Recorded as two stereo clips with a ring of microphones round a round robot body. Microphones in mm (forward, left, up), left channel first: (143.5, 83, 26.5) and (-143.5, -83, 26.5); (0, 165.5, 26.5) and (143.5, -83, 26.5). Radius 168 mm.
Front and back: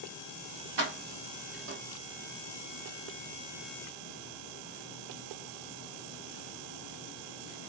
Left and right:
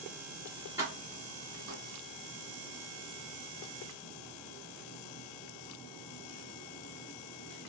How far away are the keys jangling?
About 1.2 m.